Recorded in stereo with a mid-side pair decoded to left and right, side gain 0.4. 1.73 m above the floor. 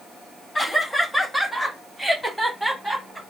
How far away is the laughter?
About 1.8 m.